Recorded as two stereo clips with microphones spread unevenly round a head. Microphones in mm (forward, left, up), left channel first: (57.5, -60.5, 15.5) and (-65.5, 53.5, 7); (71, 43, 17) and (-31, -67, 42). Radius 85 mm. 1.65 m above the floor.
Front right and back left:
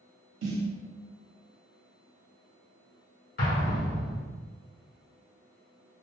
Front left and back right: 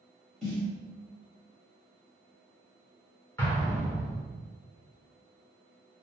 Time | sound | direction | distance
0.4 | a snare drum | 140° left | 0.9 m
3.4 | an explosion | 35° right | 1.0 m